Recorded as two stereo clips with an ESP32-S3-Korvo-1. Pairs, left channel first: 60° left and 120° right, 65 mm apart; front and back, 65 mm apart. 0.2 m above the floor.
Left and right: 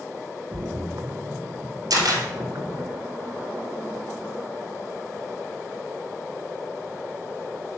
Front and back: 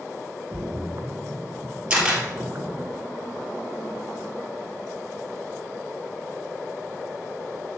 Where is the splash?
140° right, 0.9 m.